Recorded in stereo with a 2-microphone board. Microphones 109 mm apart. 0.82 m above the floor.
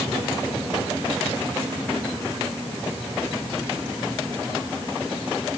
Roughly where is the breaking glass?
No breaking glass in this recording.